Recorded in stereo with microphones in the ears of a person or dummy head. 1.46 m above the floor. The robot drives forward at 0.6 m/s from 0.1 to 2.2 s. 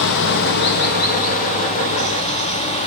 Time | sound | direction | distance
0.0 | running water | 65° left (ahead or behind) | 1.1 m